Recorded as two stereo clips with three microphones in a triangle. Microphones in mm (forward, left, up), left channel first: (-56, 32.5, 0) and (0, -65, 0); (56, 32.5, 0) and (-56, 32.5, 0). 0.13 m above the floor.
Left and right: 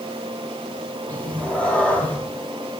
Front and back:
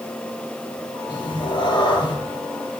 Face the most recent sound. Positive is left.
turn(degrees=40)